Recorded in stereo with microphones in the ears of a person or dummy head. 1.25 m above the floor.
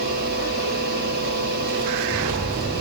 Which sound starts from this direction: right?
A fan, at 0.0 s.